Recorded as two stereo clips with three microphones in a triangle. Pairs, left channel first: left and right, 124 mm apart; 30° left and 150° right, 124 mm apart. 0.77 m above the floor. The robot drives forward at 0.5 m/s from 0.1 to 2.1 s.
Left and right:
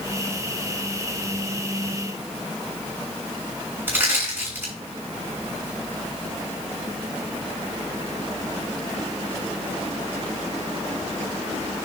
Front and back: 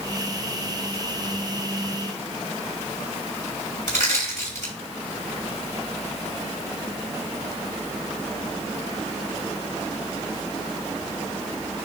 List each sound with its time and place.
3.9 s crushing: 160° right, 6.5 m